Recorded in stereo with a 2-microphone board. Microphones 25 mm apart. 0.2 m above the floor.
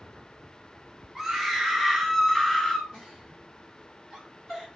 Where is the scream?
20° right (ahead or behind), 1.1 m; by 2.8 s 20° left (ahead or behind), 1.3 m.